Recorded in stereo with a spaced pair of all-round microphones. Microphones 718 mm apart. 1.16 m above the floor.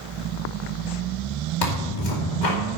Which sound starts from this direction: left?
Tearing paper, at 1.6 s.